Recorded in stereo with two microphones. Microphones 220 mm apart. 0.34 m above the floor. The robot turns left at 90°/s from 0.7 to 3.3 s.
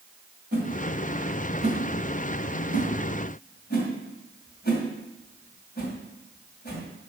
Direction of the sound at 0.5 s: 45° right (ahead or behind).